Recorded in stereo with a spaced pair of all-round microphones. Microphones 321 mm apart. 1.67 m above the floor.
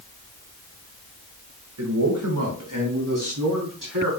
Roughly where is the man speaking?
Right.